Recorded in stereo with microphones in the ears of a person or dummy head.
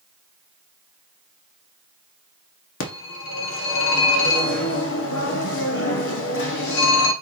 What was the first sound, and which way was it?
A phone ringing, 70° left (ahead or behind).